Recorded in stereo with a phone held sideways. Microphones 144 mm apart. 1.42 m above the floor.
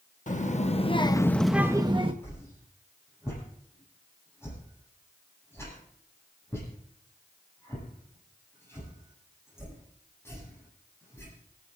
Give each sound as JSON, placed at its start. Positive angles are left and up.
{"t": 0.3, "sound": "a child speaking", "side_deg": 60, "distance_m": 1.3}
{"t": 2.2, "sound": "a whoosh", "side_deg": 15, "distance_m": 9.0}